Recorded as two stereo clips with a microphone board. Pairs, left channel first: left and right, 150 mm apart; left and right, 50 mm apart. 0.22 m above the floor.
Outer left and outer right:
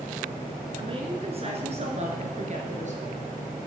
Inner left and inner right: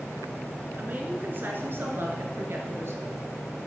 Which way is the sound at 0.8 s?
35° right (ahead or behind).